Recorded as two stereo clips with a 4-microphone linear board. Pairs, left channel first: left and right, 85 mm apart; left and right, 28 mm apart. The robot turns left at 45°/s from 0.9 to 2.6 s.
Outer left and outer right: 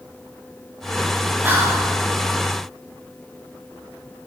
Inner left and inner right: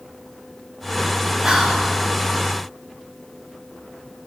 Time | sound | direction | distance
1.4 | whispering | 20° right (ahead or behind) | 0.6 m